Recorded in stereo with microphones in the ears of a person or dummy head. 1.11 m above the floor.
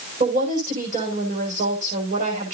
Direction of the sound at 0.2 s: 40° right (ahead or behind).